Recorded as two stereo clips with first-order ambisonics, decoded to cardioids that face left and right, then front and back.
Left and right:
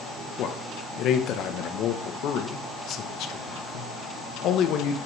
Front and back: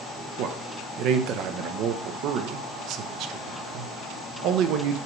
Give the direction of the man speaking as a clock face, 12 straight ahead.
7 o'clock.